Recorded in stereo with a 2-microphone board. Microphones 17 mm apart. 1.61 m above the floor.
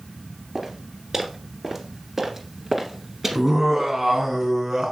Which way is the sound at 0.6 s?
20° right (ahead or behind).